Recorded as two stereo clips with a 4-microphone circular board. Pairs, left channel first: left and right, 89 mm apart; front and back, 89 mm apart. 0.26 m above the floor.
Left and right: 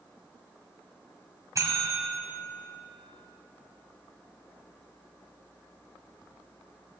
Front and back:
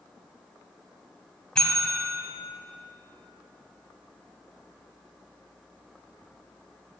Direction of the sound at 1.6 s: 75° right.